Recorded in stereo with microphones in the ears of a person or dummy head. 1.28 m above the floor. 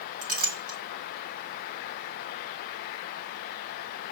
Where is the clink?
55° right (ahead or behind), 1.2 m.